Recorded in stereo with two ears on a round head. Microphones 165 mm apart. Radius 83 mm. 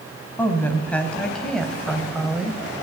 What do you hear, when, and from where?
0.4 s a woman speaking: 10° left (ahead or behind), 4.5 m; by 2.6 s 5° right (ahead or behind), 3 m